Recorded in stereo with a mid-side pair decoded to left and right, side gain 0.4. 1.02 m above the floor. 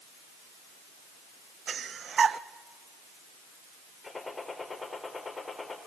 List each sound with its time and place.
1.7 s breathing: 55° right, 0.6 m
4.0 s a gunshot: 25° left, 4 m